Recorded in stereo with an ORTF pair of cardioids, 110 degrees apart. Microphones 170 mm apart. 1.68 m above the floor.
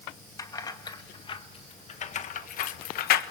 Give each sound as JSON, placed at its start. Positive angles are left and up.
{"t": 0.4, "sound": "keys jangling", "azimuth_deg": 20, "distance_m": 2.0}